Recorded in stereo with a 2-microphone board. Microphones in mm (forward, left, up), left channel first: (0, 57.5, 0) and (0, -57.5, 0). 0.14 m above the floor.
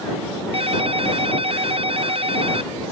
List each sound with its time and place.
0.5 s a ringtone: 55° right (ahead or behind)